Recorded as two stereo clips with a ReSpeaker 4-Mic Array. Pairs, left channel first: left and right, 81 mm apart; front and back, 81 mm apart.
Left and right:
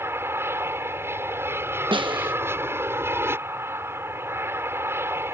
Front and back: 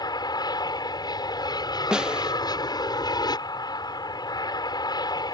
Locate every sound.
0.0 s an aircraft: 30° right
1.9 s a snare drum: 100° right